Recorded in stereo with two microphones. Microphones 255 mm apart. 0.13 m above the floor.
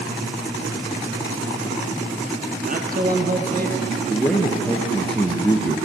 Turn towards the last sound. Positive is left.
turn(degrees=5)  # may be behind; listen again after turning